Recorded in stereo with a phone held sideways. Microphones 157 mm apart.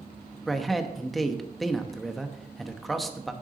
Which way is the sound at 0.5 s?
Centre (ahead or behind).